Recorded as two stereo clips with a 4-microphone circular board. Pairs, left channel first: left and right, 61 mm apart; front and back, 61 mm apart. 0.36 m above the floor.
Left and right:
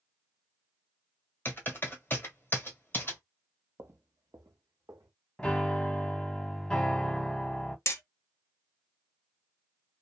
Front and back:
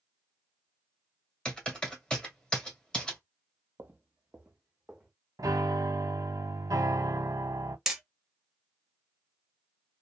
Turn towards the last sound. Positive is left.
turn(degrees=100)